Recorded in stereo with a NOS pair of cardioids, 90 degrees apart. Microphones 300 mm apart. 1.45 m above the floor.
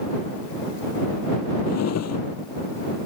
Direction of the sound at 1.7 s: 60° left.